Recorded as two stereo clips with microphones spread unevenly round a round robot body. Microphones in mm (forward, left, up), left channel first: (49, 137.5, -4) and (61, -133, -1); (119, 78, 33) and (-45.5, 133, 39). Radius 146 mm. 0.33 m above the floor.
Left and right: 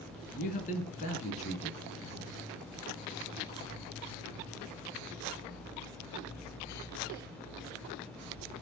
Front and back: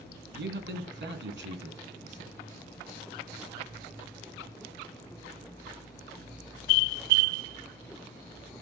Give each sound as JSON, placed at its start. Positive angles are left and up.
{"t": 0.3, "sound": "a man speaking", "azimuth_deg": 155, "distance_m": 3.5}